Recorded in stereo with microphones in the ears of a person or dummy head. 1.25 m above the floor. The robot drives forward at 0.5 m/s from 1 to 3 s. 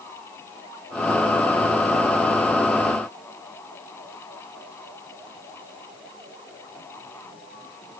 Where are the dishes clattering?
No dishes clattering in this recording.